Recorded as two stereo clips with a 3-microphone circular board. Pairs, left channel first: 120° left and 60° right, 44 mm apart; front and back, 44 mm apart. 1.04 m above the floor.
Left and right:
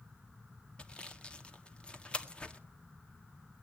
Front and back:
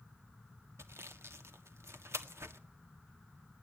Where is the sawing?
175° right, 1.6 m.